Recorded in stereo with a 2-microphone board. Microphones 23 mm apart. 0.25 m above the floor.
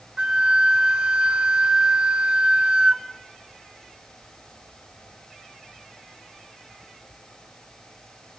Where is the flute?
35° right (ahead or behind), 1.7 m.